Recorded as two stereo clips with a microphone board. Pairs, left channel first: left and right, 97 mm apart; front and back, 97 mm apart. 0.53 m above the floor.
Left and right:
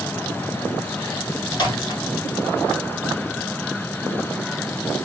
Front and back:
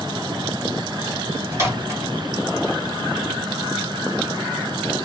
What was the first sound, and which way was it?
A microwave, 120° left.